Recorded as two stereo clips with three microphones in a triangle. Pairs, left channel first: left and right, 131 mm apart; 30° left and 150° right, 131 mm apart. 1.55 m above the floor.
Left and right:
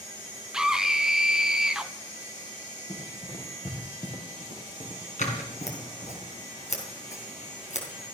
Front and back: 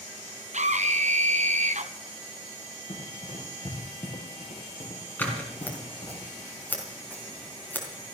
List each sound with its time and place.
0.5 s a scream: 175° right, 1.1 m
2.9 s running footsteps: 60° left, 4 m; by 6.2 s 75° left, 5.5 m
5.2 s scissors: 105° left, 3.5 m